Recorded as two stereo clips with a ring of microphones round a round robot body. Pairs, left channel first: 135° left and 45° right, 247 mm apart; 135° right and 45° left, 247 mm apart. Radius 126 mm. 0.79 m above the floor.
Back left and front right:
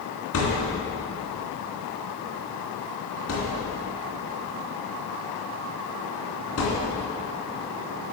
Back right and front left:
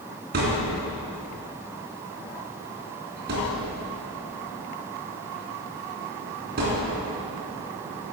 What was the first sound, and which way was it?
A thud, 100° left.